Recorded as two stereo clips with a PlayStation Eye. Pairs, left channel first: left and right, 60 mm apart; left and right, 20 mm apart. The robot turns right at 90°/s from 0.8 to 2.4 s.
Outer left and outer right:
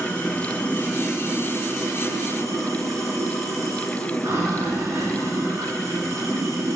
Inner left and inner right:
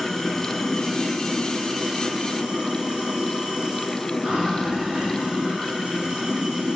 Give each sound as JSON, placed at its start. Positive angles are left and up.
{"t": 0.0, "sound": "running water", "azimuth_deg": 160, "distance_m": 5.5}